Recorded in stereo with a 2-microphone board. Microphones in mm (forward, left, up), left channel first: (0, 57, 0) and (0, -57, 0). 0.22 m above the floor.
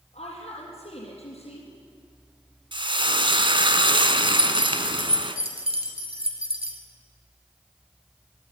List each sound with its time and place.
0.1 s a woman speaking: 75° left (ahead or behind), 5.5 m
2.7 s frying: 50° right (ahead or behind), 1.3 m
4.3 s keys jangling: 60° right (ahead or behind), 2.5 m